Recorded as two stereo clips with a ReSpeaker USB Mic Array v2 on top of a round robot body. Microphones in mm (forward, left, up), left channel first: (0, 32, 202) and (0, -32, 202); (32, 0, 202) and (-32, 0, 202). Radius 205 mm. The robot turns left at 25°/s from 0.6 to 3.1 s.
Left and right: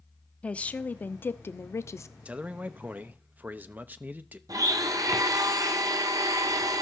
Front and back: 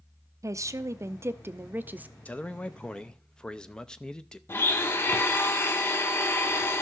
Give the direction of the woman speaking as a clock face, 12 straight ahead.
7 o'clock.